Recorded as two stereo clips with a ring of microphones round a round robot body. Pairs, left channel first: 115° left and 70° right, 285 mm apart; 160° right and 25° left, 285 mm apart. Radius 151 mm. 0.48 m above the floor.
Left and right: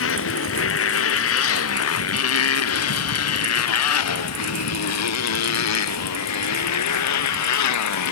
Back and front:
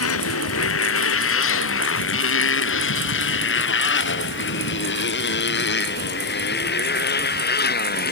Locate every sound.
0.0 s a motorcycle: 160° left; by 8.1 s 145° left